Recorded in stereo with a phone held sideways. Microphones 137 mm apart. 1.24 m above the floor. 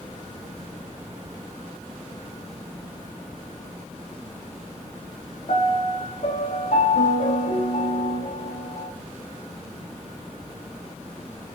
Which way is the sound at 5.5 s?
65° left (ahead or behind).